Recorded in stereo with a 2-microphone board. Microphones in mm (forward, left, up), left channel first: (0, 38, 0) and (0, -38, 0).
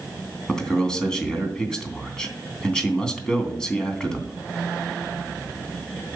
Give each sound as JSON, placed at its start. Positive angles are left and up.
{"t": 0.5, "sound": "a man speaking", "side_deg": 10, "distance_m": 3.0}